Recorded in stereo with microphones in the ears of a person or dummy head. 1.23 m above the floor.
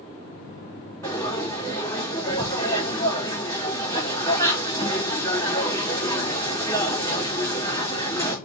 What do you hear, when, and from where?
1.0 s frying: 20° left (ahead or behind), 3 m